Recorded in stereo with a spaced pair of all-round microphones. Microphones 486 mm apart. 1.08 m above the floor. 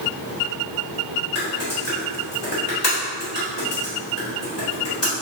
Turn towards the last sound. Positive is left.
turn(degrees=55)  # may be behind; listen again after turning